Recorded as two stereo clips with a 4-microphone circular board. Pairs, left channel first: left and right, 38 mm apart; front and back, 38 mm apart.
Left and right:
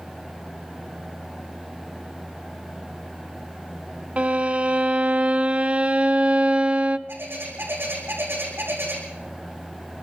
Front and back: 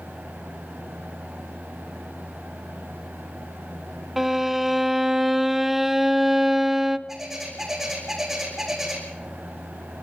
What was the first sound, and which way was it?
A violin, 105° right.